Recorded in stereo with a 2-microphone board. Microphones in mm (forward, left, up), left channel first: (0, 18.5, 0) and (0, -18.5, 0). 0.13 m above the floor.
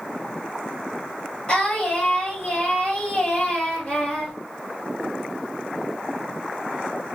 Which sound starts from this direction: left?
Singing, at 1.5 s.